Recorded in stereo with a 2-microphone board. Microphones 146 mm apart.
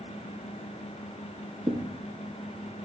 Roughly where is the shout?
No shout in this recording.